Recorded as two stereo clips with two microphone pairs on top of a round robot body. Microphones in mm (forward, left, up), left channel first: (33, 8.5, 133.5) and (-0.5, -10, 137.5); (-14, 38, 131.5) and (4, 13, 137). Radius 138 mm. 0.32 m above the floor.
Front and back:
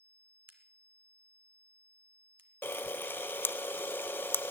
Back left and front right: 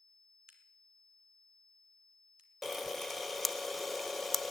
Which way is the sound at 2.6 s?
40° left.